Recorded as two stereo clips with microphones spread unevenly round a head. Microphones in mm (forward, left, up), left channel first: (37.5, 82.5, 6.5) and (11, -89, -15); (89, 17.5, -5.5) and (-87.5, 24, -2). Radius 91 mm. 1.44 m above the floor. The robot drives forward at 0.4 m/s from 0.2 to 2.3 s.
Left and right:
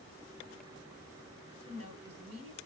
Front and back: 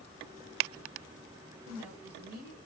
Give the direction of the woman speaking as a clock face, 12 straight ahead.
4 o'clock.